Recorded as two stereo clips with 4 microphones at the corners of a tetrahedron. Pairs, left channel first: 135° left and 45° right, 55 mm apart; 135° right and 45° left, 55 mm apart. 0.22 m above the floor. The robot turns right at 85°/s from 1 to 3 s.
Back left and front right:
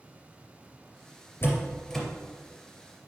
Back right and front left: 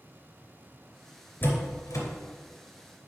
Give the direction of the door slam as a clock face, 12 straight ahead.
6 o'clock.